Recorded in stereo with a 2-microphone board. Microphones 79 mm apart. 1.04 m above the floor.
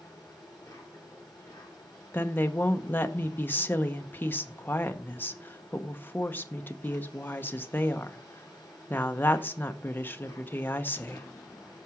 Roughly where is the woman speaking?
Left.